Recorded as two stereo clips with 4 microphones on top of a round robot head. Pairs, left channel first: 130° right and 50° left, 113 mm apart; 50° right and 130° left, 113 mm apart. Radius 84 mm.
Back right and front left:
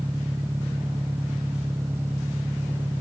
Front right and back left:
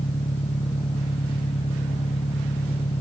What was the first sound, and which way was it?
An engine running, 25° right.